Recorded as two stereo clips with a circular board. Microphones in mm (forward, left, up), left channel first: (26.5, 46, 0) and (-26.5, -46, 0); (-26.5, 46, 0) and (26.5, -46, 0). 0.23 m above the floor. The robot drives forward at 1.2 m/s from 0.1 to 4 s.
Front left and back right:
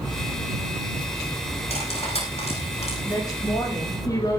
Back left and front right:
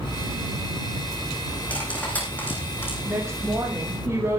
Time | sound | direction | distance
1.7 | cutlery clinking | 45° left | 9 m
3.0 | a woman speaking | 5° left | 9.5 m